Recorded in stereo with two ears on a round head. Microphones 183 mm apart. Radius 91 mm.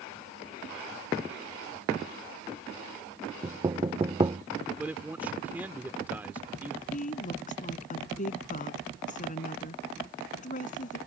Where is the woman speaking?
40° left (ahead or behind).